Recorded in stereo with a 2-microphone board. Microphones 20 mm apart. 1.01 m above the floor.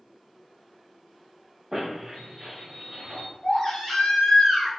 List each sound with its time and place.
1.7 s a squeak: 15° right (ahead or behind), 1.2 m
3.4 s a baby crying: 50° left (ahead or behind), 1.3 m